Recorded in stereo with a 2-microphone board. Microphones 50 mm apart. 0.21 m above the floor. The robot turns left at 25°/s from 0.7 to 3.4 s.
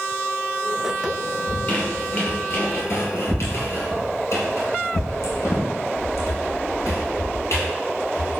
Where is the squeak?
20° left (ahead or behind), 2 m; by 8.4 s 65° left (ahead or behind), 2 m.